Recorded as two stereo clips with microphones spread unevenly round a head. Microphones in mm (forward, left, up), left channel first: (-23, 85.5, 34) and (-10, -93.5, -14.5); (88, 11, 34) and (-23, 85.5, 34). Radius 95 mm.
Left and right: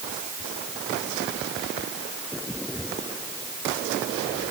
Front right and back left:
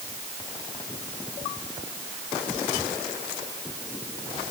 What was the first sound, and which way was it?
Only background noise.